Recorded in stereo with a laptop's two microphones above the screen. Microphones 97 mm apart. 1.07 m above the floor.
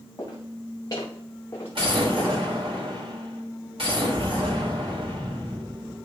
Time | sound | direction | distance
0.2 | footsteps | 40° left (ahead or behind) | 5 m
1.8 | an explosion | 80° right | 3 m